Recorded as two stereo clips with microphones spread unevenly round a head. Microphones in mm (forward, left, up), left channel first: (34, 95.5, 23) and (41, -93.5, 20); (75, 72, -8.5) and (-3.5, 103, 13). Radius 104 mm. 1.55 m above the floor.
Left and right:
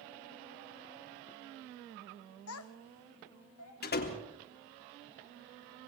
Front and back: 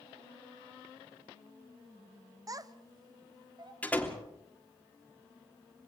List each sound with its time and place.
2.5 s a child speaking: 120° left, 1.2 m; by 3.7 s 125° left, 2.5 m
3.8 s a door slam: 55° left, 3.5 m